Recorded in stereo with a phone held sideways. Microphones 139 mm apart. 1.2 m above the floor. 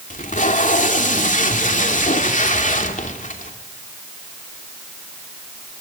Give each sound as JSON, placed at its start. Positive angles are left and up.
{"t": 0.1, "sound": "tape being pulled", "side_deg": 65, "distance_m": 2.5}